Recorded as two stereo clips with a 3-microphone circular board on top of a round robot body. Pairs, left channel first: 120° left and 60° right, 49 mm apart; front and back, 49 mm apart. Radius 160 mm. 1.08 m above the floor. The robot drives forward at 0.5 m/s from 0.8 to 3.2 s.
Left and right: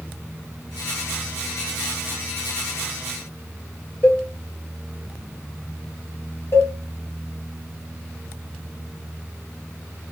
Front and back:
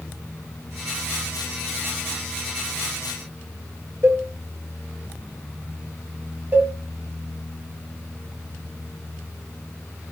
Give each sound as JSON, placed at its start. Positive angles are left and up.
{"t": 4.0, "sound": "a cowbell", "azimuth_deg": 170, "distance_m": 1.2}
{"t": 6.5, "sound": "a cowbell", "azimuth_deg": 130, "distance_m": 1.3}